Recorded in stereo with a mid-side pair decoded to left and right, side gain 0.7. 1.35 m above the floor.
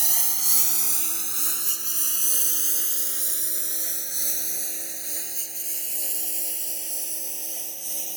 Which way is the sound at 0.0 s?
10° right.